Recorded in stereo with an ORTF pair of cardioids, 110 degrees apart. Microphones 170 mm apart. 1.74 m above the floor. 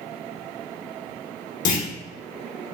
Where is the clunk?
55° left, 0.9 m.